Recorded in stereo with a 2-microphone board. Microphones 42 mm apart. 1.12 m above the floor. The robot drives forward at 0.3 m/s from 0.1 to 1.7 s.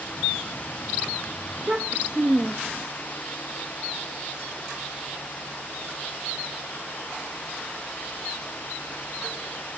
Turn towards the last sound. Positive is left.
turn(degrees=-35)  # may be behind; listen again after turning